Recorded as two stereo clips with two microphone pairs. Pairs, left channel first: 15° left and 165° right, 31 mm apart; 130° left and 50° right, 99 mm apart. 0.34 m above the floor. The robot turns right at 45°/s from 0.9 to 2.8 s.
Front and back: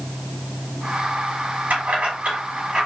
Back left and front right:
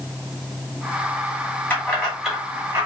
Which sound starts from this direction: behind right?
Keys jangling, at 1.7 s.